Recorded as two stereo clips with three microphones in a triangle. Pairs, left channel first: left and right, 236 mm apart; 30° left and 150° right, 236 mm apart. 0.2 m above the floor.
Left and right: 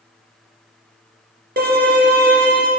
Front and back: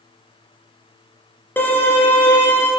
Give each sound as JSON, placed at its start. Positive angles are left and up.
{"t": 1.6, "sound": "a violin", "azimuth_deg": -50, "distance_m": 1.6}